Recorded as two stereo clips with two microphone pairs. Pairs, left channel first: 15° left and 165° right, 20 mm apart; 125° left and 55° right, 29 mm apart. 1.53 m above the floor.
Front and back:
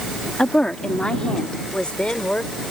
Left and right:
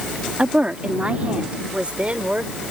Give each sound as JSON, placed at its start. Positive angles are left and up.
{"t": 0.4, "sound": "a woman speaking", "azimuth_deg": -15}